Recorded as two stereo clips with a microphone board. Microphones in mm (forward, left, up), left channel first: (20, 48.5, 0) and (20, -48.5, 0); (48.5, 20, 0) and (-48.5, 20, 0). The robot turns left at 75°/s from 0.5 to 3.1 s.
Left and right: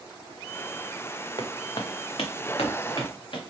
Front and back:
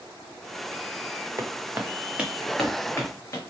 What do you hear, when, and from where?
1.4 s footsteps: 125° left, 0.9 m; by 3.4 s 60° left, 1.8 m